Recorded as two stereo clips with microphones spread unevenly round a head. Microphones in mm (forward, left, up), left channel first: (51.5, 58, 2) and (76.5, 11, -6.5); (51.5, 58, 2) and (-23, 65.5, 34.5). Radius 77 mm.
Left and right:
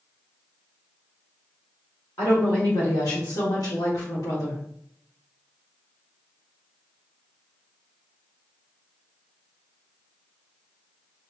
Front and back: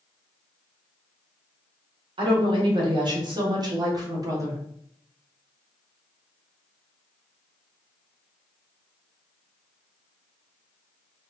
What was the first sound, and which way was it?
A woman speaking, 165° left.